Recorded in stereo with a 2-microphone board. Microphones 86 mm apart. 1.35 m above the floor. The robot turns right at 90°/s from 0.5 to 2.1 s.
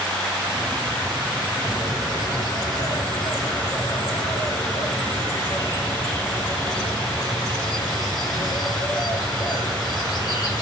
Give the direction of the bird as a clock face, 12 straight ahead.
11 o'clock.